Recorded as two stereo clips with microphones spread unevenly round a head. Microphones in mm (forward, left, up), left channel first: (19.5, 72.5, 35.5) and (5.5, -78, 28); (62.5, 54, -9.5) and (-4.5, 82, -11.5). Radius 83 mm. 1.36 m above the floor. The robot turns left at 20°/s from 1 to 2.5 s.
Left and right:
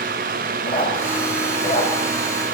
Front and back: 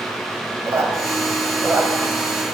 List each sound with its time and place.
0.7 s a squeak: 125° left, 1.6 m; by 1.9 s 105° left, 1.6 m